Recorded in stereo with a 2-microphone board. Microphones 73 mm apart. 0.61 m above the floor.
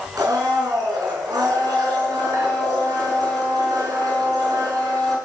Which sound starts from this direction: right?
A blender, at 0.2 s.